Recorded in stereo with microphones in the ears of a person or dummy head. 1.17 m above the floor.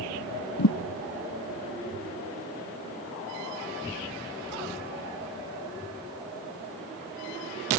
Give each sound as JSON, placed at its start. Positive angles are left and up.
{"t": 0.6, "sound": "a thud", "side_deg": 60}